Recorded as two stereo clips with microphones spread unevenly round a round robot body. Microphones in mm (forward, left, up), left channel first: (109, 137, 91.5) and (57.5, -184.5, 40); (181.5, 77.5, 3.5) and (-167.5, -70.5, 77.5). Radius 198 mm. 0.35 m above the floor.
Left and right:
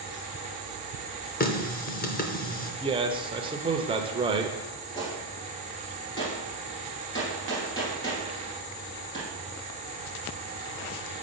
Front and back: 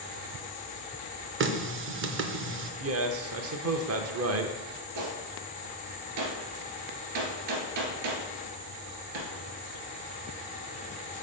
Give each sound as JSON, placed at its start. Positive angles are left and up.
{"t": 1.4, "sound": "a running tap", "azimuth_deg": 145, "distance_m": 0.7}
{"t": 2.8, "sound": "a man speaking", "azimuth_deg": -130, "distance_m": 0.9}
{"t": 5.0, "sound": "a gunshot", "azimuth_deg": 160, "distance_m": 1.8}